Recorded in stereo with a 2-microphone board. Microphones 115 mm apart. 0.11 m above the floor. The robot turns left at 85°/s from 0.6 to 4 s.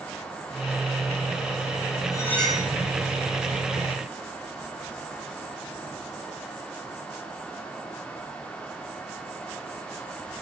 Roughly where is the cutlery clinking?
Ahead left.